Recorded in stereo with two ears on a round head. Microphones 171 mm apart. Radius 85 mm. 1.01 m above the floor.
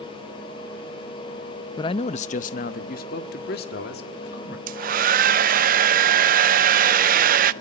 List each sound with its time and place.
1.8 s a man speaking: 20° left (ahead or behind), 0.6 m; by 4.6 s 60° left (ahead or behind), 2.5 m
4.7 s a hair dryer: 45° right (ahead or behind), 0.5 m